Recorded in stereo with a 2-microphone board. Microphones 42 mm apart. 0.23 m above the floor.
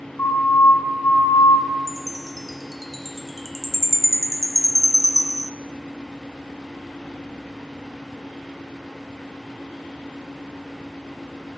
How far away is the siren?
About 4 m.